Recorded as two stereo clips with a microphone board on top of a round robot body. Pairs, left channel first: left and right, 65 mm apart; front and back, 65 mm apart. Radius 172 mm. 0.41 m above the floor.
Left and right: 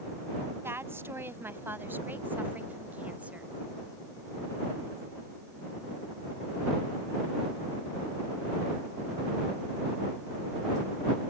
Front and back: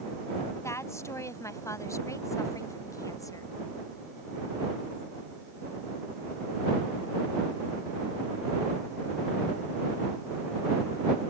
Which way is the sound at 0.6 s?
40° right.